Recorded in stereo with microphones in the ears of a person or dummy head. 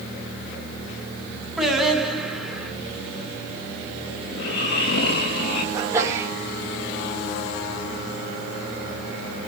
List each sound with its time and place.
1.6 s singing: centre (ahead or behind), 8 m
4.3 s snoring: 55° left (ahead or behind), 7 m
5.7 s a sneeze: 20° right (ahead or behind), 3.5 m